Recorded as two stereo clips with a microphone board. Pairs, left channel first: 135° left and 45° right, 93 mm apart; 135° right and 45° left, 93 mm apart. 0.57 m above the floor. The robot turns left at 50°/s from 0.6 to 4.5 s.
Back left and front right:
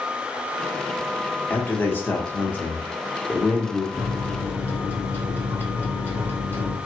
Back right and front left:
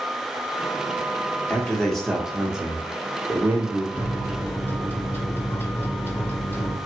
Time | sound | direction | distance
1.5 | a man speaking | 165° left | 0.9 m
3.9 | a microwave | 150° right | 1.0 m